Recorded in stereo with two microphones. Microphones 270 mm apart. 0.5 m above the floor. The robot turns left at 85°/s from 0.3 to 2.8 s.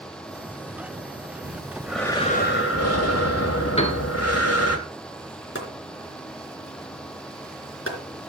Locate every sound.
1.4 s breathing: 135° right, 2.5 m; by 4.8 s 110° left, 2.5 m
3.8 s a piano: 20° left (ahead or behind), 1.6 m
5.5 s chopping: 50° left (ahead or behind), 3 m